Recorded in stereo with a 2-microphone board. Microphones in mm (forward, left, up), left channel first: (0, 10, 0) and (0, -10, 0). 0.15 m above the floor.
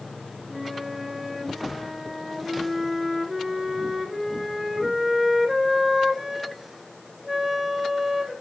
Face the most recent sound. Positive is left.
turn(degrees=-5)  # may be behind; listen again after turning